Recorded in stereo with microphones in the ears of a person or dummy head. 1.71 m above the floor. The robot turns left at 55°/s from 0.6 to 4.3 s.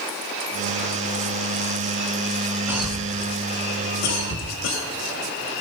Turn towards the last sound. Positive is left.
turn(degrees=75)  # may be behind; listen again after turning